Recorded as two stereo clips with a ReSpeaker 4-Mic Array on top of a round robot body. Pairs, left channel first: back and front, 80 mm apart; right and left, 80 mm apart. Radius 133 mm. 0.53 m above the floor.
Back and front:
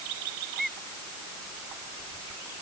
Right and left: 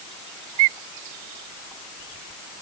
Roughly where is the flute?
I don't hear a flute.